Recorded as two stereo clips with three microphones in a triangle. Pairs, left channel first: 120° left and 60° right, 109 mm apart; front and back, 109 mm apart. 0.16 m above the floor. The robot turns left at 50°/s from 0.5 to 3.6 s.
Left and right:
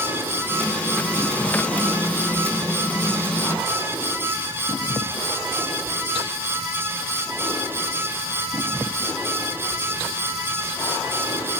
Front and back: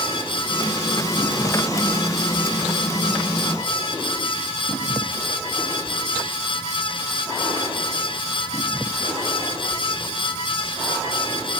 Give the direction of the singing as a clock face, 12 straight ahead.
I don't hear singing.